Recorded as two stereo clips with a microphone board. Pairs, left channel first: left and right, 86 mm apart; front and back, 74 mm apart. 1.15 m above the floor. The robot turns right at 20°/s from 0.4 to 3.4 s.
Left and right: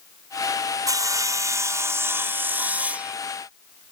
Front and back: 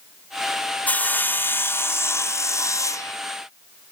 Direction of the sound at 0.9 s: 65° right.